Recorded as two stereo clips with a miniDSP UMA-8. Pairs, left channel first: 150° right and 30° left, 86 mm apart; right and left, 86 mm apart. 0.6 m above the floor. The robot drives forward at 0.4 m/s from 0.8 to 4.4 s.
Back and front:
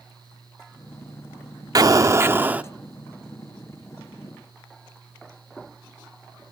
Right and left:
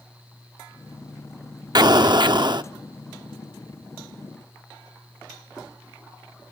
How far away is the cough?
I don't hear a cough.